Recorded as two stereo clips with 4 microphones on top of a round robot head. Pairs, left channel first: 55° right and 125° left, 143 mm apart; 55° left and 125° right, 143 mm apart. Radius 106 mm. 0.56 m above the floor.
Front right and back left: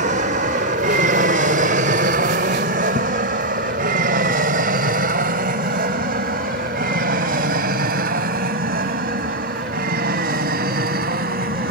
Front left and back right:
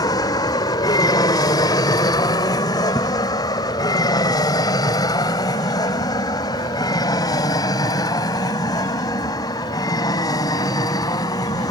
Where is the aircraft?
115° left; by 11.7 s 120° left.